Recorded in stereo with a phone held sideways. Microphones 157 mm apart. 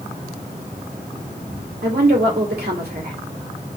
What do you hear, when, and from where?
1.8 s a woman speaking: 75° right (ahead or behind), 2.5 m